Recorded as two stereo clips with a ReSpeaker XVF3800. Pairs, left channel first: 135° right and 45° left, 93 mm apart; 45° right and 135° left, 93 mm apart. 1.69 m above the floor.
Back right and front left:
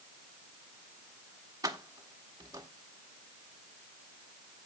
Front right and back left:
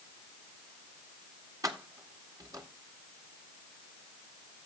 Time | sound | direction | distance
1.6 | keys jangling | 90° left | 1.6 m